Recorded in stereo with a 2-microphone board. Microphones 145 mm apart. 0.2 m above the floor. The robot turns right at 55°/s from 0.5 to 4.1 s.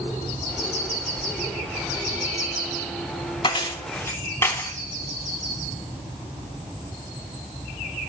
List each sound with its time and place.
3.4 s keys jangling: 35° left (ahead or behind), 0.8 m; by 4.7 s 20° left (ahead or behind), 0.8 m